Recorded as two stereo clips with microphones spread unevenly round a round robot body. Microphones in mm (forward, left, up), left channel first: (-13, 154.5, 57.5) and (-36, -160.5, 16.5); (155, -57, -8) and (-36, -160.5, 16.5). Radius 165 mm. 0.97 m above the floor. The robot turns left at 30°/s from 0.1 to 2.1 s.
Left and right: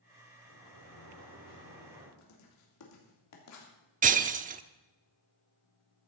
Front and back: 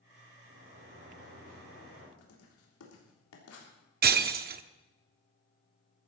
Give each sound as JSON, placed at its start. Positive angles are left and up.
{"t": 0.5, "sound": "a sliding door", "azimuth_deg": -115, "distance_m": 5.5}
{"t": 2.2, "sound": "writing", "azimuth_deg": 45, "distance_m": 3.5}
{"t": 4.0, "sound": "breaking glass", "azimuth_deg": -160, "distance_m": 0.6}